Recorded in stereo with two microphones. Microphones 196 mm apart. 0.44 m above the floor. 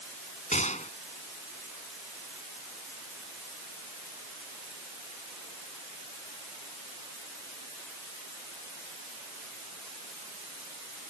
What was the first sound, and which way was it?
A gunshot, 40° left (ahead or behind).